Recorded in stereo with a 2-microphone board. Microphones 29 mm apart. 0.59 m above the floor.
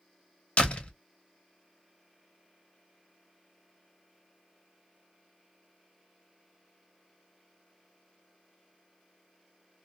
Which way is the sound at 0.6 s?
45° left (ahead or behind).